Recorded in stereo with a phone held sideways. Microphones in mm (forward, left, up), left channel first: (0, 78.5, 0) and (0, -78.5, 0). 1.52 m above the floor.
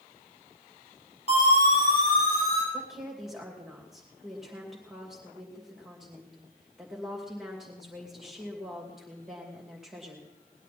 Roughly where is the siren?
Left.